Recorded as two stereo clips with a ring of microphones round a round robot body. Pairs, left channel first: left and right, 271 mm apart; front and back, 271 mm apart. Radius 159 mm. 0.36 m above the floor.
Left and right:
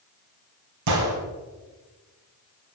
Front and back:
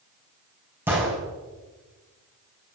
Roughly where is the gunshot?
Right.